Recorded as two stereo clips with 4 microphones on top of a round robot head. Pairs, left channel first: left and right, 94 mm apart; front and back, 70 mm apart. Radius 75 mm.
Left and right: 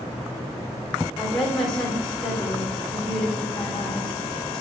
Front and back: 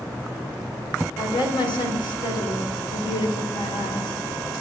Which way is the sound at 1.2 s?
5° left.